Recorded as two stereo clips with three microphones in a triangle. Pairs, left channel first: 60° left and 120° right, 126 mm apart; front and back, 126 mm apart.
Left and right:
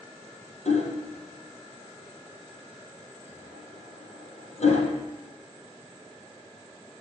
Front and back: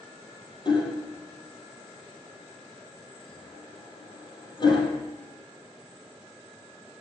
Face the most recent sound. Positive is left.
turn(degrees=45)